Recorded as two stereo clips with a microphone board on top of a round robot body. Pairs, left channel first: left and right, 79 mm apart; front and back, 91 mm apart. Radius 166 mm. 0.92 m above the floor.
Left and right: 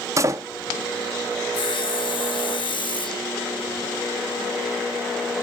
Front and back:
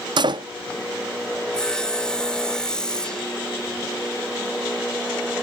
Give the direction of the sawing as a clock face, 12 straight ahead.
9 o'clock.